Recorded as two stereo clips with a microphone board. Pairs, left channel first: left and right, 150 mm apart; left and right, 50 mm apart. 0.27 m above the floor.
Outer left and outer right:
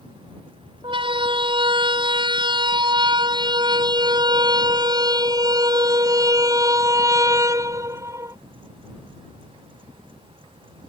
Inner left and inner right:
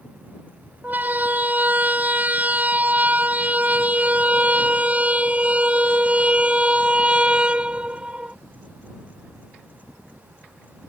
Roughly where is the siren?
Right.